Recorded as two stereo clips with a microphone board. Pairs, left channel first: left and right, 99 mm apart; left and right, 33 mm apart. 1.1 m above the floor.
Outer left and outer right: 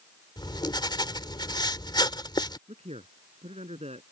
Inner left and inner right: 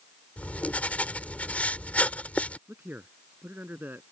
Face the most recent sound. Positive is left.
turn(degrees=-85)